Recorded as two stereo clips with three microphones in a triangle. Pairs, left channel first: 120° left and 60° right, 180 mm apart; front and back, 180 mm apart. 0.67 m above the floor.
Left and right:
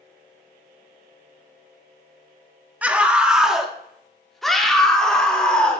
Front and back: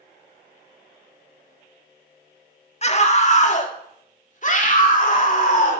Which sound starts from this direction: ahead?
A scream, at 2.8 s.